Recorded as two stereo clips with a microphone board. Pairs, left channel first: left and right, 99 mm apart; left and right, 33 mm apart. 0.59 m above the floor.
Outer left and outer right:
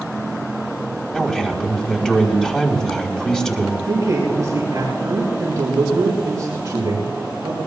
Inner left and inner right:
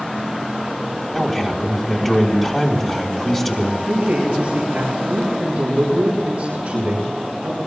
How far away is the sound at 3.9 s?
About 6.5 m.